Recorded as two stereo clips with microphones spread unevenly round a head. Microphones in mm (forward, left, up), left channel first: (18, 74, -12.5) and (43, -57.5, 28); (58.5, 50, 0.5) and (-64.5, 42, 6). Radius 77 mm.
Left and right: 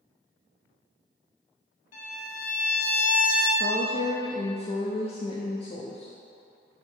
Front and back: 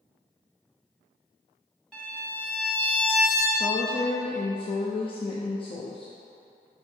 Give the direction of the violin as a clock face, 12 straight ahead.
9 o'clock.